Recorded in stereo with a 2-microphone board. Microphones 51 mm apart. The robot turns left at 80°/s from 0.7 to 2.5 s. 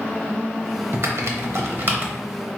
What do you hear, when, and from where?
0.9 s typing on a keyboard: 45° right (ahead or behind), 0.7 m; by 2.1 s 30° right (ahead or behind), 0.7 m